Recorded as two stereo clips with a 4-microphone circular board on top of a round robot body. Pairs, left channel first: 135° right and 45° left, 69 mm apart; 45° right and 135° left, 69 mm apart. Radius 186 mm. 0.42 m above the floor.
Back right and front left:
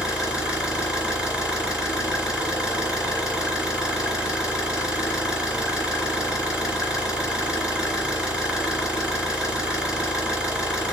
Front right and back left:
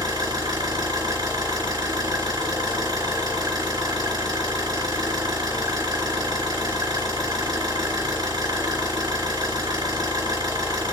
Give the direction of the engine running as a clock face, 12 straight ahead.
8 o'clock.